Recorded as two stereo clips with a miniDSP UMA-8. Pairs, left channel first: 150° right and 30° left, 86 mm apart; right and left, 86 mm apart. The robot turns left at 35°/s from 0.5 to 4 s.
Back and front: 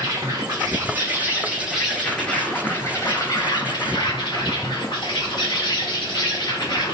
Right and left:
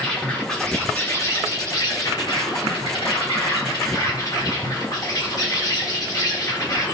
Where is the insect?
10° right, 1.0 m; by 7.0 s 135° right, 1.0 m.